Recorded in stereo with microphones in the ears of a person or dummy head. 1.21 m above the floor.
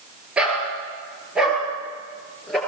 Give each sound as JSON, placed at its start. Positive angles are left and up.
{"t": 0.4, "sound": "a dog barking", "side_deg": -5, "distance_m": 8.5}